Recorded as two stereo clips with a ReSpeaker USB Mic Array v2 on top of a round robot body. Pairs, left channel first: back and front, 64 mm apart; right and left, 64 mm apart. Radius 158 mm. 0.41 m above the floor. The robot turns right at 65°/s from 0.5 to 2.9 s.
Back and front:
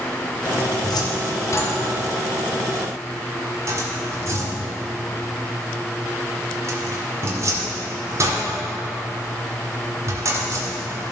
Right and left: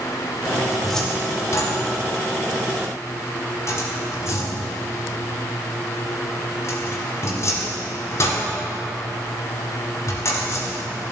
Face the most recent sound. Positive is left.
turn(degrees=-45)